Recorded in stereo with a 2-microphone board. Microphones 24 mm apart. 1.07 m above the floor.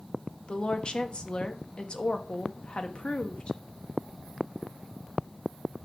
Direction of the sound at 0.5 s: 45° left (ahead or behind).